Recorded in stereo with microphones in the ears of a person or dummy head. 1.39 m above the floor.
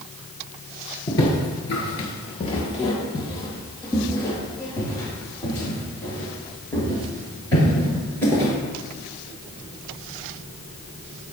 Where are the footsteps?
20° left (ahead or behind), 1.7 m; by 8.5 s 15° left (ahead or behind), 9.5 m.